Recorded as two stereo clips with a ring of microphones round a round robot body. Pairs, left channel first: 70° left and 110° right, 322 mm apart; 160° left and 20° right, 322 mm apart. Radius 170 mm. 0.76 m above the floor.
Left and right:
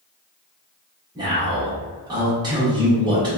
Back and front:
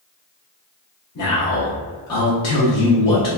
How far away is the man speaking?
About 0.9 m.